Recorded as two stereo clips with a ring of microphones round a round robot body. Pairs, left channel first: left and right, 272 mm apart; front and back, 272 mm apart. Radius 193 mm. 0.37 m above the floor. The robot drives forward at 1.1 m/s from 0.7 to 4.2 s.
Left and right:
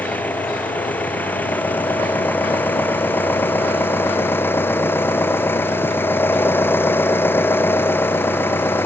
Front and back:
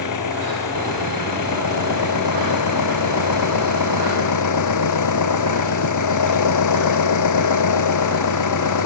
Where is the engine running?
5° left; by 8.8 s 10° left.